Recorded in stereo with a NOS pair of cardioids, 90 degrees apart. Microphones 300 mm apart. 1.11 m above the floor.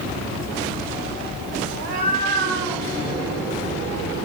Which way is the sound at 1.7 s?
60° right.